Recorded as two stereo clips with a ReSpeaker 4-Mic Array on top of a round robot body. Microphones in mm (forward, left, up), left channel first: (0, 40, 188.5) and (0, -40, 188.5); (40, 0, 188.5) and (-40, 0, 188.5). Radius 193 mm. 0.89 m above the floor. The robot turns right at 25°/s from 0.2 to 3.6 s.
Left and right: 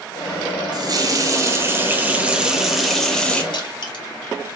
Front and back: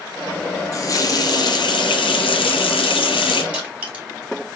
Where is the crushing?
105° left, 3 m.